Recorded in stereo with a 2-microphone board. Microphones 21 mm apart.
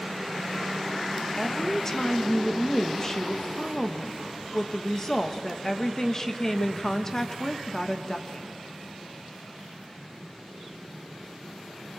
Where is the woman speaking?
30° left (ahead or behind), 1.4 m.